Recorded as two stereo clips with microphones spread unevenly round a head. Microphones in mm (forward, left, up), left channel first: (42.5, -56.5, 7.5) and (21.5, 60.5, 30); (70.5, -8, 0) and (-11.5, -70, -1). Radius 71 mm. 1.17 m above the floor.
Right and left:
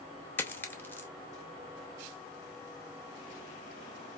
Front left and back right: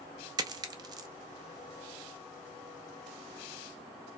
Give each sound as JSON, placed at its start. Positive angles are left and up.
{"t": 0.4, "sound": "a dropped coin", "azimuth_deg": -165, "distance_m": 0.5}